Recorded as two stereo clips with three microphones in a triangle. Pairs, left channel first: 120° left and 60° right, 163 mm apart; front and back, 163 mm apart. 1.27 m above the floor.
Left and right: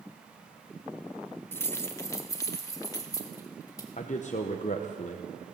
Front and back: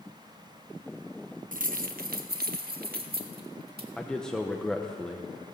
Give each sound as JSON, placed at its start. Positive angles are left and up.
{"t": 1.5, "sound": "keys jangling", "azimuth_deg": -170, "distance_m": 0.7}
{"t": 4.0, "sound": "a man speaking", "azimuth_deg": 85, "distance_m": 0.9}